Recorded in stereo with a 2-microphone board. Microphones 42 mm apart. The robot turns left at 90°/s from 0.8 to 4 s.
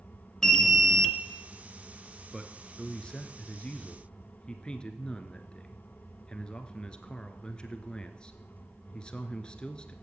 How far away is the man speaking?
About 1.3 m.